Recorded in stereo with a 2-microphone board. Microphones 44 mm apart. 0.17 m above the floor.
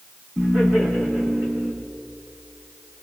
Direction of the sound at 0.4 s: 10° left (ahead or behind).